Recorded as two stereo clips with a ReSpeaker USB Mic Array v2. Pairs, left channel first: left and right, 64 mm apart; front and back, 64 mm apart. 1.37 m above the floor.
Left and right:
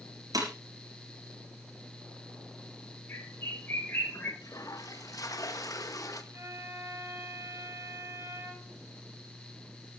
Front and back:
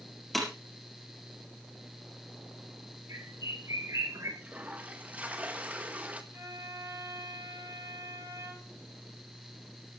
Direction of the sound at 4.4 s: 115° left.